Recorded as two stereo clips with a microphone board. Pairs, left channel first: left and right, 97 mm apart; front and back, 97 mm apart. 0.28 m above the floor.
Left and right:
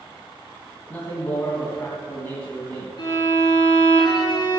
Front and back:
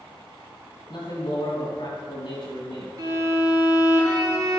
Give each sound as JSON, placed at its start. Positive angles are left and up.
{"t": 0.9, "sound": "a man speaking", "azimuth_deg": 25, "distance_m": 2.5}
{"t": 3.0, "sound": "a violin", "azimuth_deg": 130, "distance_m": 4.0}